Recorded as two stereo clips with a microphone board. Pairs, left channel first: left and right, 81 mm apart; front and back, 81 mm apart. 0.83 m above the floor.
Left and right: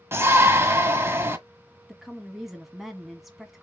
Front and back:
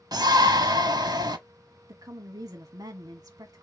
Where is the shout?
150° right, 1.2 m.